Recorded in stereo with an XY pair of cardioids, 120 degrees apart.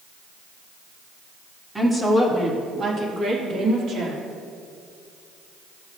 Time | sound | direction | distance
1.8 | a woman speaking | 10° right | 1.9 m